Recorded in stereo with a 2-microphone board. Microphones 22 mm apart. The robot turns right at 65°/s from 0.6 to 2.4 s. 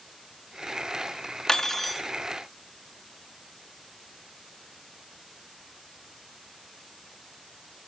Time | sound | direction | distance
1.5 | cutlery clinking | 150° left | 1.0 m